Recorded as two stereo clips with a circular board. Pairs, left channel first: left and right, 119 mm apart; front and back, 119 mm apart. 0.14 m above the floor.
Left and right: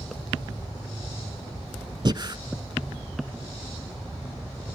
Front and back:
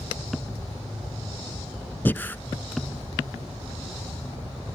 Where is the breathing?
65° right, 0.5 m.